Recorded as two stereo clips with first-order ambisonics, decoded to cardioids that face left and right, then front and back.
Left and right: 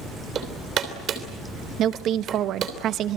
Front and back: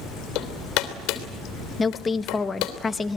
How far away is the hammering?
About 3 m.